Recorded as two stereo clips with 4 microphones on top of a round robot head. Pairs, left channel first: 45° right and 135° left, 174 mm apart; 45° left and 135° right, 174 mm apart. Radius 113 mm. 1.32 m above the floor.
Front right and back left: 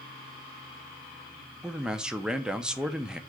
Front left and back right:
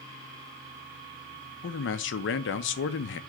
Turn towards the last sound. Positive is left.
turn(degrees=45)